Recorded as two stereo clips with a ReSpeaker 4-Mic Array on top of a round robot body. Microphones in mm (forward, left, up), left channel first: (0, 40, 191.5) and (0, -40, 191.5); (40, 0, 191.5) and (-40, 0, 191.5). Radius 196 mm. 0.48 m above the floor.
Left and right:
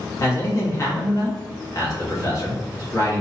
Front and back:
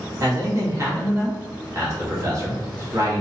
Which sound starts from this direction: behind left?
A man speaking, at 0.2 s.